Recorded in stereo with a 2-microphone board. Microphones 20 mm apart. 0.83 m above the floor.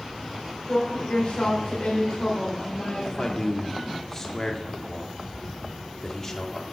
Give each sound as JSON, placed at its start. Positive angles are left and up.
{"t": 0.7, "sound": "a woman speaking", "side_deg": 60, "distance_m": 3.5}
{"t": 3.0, "sound": "a man speaking", "side_deg": 25, "distance_m": 2.0}